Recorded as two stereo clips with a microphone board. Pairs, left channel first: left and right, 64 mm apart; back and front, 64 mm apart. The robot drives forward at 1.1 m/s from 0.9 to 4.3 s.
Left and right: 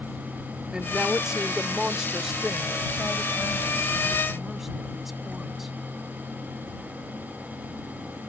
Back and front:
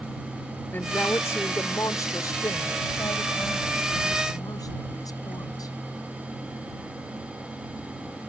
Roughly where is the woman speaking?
Behind right.